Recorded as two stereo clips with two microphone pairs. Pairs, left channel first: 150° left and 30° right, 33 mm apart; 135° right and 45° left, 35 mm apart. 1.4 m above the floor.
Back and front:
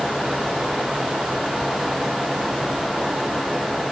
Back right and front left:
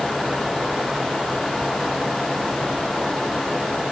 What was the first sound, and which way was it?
Only background noise.